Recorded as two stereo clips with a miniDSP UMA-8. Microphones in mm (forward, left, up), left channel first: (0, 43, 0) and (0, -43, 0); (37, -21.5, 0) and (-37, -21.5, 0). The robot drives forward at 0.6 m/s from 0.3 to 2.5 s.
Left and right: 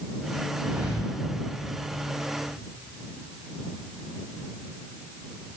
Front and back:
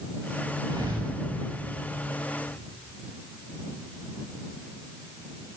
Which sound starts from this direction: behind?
A thud, at 0.7 s.